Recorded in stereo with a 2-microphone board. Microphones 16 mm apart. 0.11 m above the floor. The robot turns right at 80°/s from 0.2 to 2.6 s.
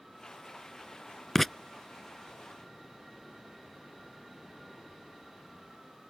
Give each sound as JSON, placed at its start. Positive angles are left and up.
{"t": 1.4, "sound": "writing", "side_deg": 10}